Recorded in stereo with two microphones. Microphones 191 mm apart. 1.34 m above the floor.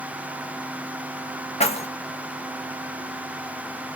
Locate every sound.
1.6 s keys jangling: 30° left (ahead or behind), 1.3 m